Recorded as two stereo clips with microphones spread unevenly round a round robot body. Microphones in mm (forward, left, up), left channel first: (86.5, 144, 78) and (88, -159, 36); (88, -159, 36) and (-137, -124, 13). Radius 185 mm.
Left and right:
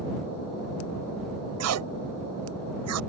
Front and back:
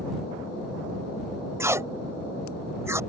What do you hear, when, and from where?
1.6 s tape being pulled: 115° right